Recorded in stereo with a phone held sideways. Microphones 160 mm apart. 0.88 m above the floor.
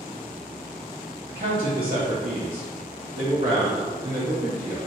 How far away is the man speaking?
About 0.8 m.